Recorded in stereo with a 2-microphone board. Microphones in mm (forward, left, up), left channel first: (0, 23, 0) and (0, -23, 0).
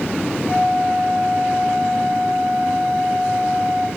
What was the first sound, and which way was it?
A flute, 45° right (ahead or behind).